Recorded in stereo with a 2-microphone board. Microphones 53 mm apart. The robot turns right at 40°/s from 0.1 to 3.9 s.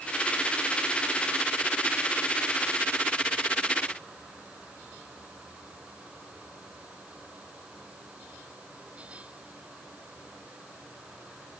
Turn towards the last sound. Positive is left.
No sound to turn to.